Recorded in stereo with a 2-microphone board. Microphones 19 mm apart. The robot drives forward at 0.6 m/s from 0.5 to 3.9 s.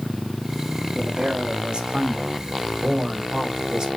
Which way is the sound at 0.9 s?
70° right (ahead or behind).